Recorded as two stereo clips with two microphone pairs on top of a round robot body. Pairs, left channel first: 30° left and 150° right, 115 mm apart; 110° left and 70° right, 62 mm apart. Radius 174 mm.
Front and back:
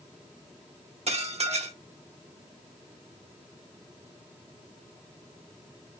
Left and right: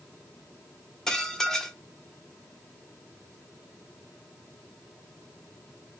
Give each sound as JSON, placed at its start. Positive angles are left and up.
{"t": 1.1, "sound": "dishes clattering", "azimuth_deg": -170, "distance_m": 1.5}